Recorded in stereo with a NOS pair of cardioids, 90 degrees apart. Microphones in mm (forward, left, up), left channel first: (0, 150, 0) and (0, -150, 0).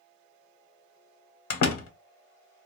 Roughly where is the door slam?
Ahead left.